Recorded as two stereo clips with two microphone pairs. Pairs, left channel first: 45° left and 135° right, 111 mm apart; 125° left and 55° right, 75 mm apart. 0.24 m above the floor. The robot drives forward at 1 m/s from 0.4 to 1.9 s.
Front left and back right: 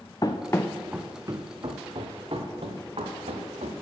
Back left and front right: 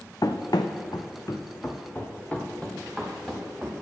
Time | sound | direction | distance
0.2 | running footsteps | 95° left | 0.9 m